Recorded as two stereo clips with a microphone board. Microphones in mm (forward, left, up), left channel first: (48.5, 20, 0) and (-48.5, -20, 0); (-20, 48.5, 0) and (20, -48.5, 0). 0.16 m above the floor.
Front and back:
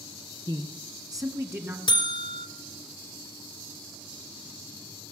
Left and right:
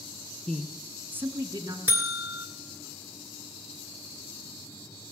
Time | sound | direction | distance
0.5 | a man speaking | 170° right | 1.5 m
1.9 | a buzzer | straight ahead | 1.5 m